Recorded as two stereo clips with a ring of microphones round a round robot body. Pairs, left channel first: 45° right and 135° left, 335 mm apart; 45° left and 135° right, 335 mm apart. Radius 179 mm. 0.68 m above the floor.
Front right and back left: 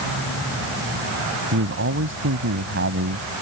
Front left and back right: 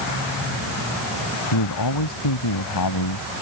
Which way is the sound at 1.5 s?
80° left.